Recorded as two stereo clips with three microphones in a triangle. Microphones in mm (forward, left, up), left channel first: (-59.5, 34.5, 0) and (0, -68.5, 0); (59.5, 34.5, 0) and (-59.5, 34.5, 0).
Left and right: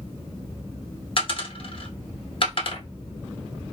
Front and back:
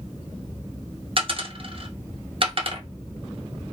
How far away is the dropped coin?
About 0.8 m.